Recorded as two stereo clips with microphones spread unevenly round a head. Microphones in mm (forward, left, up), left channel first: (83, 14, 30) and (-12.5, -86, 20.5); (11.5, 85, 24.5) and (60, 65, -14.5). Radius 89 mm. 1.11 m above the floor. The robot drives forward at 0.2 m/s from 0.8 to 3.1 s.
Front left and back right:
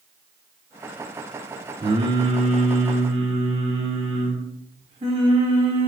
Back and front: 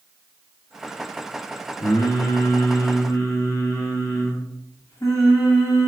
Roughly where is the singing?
Behind.